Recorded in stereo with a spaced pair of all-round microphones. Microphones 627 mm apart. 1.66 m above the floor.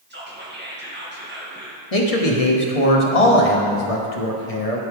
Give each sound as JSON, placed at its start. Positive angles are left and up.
{"t": 0.1, "sound": "whispering", "side_deg": -15, "distance_m": 2.0}
{"t": 1.9, "sound": "a man speaking", "side_deg": 65, "distance_m": 1.2}